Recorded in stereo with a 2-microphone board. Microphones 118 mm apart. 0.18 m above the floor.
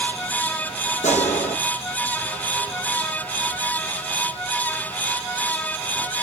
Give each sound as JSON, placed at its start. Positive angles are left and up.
{"t": 1.0, "sound": "a gunshot", "side_deg": 80, "distance_m": 4.5}